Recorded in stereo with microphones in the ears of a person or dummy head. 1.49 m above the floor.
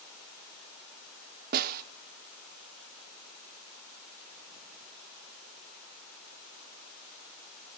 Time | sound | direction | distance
1.5 | a snare drum | 45° right (ahead or behind) | 0.5 m